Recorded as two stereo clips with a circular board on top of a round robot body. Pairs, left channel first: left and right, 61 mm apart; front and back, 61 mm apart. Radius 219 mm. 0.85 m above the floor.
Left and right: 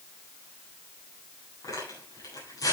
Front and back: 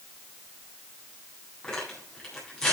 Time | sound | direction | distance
1.6 | tearing paper | 80° left | 9 m